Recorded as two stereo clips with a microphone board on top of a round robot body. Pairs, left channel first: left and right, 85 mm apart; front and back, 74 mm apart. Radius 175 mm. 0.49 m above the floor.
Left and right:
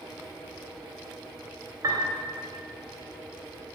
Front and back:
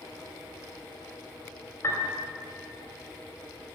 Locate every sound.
1.8 s a piano: 50° right, 3 m